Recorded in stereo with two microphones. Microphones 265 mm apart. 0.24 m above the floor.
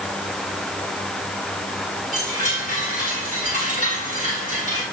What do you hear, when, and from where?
2.1 s a chime: 30° right (ahead or behind), 8 m